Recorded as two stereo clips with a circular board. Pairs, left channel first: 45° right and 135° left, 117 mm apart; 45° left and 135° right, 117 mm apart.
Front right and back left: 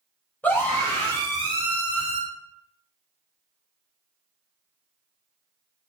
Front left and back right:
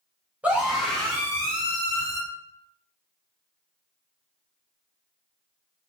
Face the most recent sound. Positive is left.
turn(degrees=-10)